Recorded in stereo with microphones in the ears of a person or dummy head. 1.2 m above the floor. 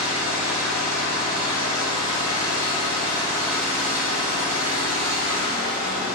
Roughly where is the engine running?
Centre.